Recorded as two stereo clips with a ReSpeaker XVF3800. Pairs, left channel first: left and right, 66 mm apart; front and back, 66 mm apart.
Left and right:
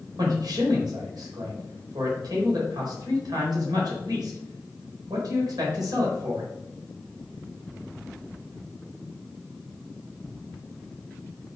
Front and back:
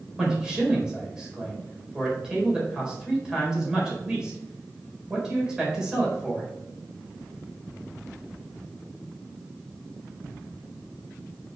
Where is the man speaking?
100° right, 4 m.